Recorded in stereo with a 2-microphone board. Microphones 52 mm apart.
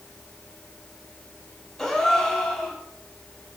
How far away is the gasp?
About 2 m.